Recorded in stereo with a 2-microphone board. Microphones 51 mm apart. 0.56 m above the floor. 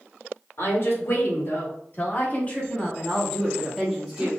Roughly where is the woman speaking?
Left.